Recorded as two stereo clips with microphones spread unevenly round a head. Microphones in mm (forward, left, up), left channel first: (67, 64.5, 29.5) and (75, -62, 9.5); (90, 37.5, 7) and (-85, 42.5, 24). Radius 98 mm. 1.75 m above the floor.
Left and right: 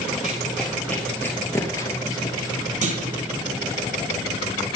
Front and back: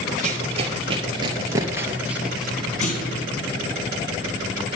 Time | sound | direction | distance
0.2 | running footsteps | 175° left | 2.5 m
2.8 | a clunk | 60° right | 4 m